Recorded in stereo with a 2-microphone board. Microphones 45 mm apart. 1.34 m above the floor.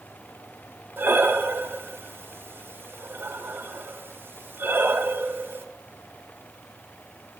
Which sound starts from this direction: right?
Breathing, at 1.0 s.